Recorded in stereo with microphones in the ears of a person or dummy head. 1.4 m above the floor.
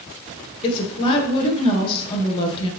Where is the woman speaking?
25° left (ahead or behind), 0.6 m.